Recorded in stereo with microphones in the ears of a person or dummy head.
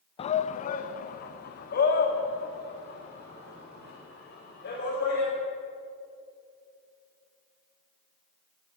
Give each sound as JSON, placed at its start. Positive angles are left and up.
{"t": 0.2, "sound": "a shout", "side_deg": 35, "distance_m": 0.7}